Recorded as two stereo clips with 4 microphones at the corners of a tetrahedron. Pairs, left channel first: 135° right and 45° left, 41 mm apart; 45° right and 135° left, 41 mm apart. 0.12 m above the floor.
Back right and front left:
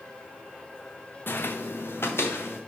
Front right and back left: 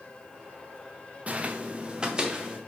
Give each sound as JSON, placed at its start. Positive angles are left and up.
{"t": 1.3, "sound": "footsteps", "azimuth_deg": -170, "distance_m": 0.5}